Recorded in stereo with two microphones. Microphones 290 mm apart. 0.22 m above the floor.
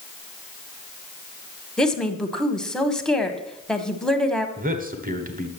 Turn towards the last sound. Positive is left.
turn(degrees=-30)  # may be behind; listen again after turning